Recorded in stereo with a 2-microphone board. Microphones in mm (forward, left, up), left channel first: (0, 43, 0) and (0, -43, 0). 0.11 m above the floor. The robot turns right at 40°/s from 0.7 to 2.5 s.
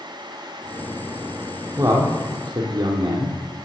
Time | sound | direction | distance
1.8 | a man speaking | 40° right (ahead or behind) | 3 m